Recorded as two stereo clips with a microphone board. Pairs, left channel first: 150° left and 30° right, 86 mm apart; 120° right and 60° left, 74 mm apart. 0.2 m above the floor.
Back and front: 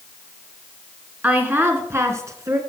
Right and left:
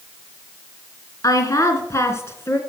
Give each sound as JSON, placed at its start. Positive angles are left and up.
{"t": 1.2, "sound": "a woman speaking", "azimuth_deg": -100, "distance_m": 2.5}